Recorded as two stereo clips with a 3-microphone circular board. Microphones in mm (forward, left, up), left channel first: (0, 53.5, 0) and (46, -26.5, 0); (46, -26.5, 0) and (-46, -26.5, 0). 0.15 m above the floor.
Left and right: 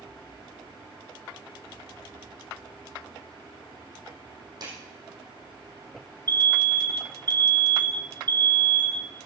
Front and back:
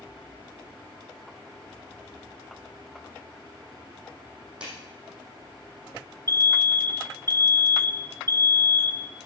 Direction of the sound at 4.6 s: 105° right.